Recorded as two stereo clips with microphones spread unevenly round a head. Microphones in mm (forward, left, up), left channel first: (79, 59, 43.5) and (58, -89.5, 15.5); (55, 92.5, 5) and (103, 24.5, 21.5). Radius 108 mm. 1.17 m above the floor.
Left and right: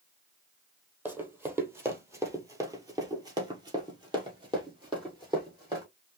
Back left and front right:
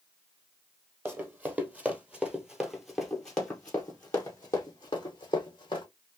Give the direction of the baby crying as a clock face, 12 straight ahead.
I don't hear a baby crying.